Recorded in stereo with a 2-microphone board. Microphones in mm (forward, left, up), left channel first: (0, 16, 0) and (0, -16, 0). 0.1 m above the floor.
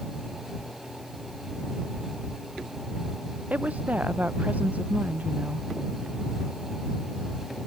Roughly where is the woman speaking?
Right.